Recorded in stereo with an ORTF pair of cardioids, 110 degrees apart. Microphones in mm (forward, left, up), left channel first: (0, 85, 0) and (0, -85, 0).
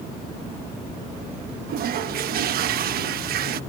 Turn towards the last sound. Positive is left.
turn(degrees=-65)